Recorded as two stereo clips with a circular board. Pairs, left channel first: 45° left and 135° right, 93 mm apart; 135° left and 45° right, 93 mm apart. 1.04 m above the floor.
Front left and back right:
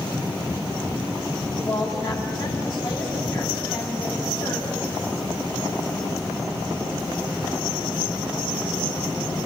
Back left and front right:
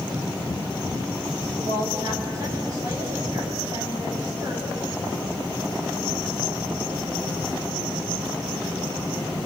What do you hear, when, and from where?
1.6 s a woman speaking: 5° left, 9 m